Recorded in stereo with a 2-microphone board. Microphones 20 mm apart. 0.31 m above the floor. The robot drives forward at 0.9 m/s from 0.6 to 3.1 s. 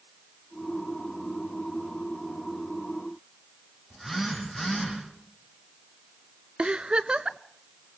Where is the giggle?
60° right (ahead or behind), 0.6 m.